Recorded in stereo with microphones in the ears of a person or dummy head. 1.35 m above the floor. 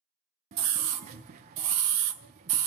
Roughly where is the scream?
Right.